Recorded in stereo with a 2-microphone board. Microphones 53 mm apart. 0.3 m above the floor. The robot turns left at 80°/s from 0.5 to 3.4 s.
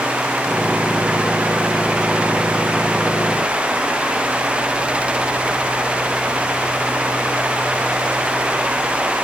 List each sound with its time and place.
Only background noise.